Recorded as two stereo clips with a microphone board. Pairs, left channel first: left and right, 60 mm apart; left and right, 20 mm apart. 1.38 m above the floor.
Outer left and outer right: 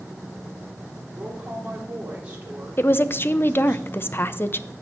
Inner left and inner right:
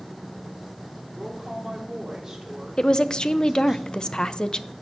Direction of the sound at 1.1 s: 25° right (ahead or behind).